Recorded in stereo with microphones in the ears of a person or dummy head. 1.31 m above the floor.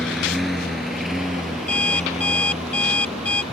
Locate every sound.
0.0 s a lawn mower: centre (ahead or behind); by 3.5 s 5° right (ahead or behind)
1.7 s an alarm clock: 10° left (ahead or behind)